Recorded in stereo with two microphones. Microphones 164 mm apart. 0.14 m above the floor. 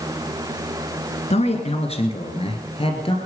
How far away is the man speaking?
About 1.6 m.